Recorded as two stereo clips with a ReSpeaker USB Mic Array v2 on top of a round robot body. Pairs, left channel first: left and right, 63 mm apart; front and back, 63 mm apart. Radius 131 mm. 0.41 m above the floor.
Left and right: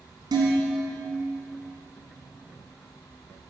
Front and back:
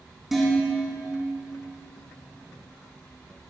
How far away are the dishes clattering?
About 3 m.